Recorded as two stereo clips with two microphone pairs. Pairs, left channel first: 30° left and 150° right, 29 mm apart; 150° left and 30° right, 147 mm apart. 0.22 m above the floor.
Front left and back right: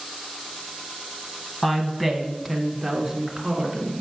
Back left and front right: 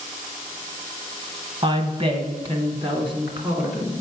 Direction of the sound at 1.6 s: 45° right.